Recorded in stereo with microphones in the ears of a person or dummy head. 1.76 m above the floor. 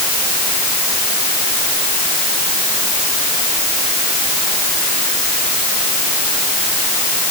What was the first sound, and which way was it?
Only background noise.